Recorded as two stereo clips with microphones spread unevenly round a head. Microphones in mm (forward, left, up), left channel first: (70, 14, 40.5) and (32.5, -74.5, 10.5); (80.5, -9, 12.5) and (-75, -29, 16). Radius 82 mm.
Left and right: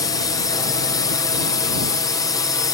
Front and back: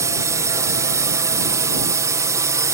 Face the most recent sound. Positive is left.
turn(degrees=130)